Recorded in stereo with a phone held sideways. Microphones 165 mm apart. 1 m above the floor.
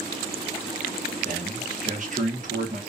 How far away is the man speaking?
About 0.9 m.